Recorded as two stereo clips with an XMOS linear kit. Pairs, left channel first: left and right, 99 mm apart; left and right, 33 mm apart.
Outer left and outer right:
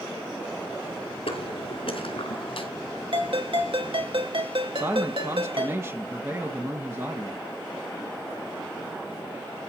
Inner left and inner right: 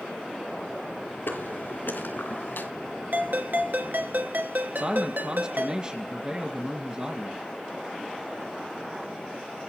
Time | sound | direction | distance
1.3 | footsteps | 75° left (ahead or behind) | 6.5 m
3.1 | a ringtone | 65° right (ahead or behind) | 2 m
4.8 | a man speaking | 30° right (ahead or behind) | 1.8 m